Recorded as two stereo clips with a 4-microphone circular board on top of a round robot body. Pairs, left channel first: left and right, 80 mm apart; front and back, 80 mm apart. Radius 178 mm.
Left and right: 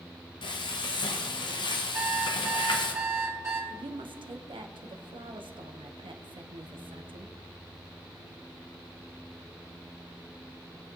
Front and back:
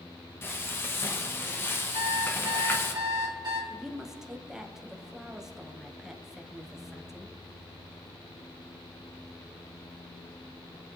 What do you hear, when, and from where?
0.4 s frying: 65° left, 0.9 m
1.9 s an alarm clock: 150° right, 2 m
3.7 s a woman speaking: 95° right, 1.1 m